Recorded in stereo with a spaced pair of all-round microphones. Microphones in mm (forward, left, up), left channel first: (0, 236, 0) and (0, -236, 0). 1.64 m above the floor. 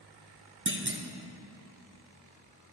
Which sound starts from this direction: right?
A clunk, at 0.7 s.